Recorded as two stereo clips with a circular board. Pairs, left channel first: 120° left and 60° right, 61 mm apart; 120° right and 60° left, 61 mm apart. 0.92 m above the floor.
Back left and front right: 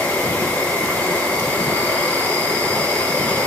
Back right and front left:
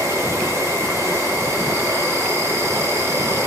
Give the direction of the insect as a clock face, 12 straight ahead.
10 o'clock.